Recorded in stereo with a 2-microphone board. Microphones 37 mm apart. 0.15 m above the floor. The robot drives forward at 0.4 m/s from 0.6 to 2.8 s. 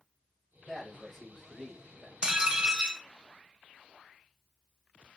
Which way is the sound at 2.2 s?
20° right (ahead or behind).